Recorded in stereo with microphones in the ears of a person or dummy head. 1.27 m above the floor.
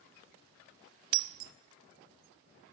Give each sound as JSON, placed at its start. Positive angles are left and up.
{"t": 1.1, "sound": "breaking glass", "side_deg": -60, "distance_m": 1.2}